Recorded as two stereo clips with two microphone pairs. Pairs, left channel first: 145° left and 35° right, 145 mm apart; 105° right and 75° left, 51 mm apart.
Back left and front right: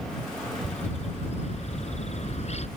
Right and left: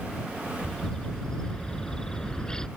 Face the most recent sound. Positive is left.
turn(degrees=-175)